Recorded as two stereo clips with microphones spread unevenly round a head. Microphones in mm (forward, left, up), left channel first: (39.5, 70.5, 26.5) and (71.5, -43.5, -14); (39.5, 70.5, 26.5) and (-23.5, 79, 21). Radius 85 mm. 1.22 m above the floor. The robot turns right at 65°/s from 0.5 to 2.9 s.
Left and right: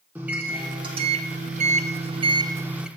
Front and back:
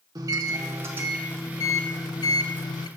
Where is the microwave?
150° right, 0.6 m; by 2.9 s 5° left, 0.6 m.